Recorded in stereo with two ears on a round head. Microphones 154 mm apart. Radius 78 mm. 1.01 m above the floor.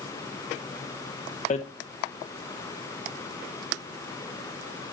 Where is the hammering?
40° left (ahead or behind), 0.7 m.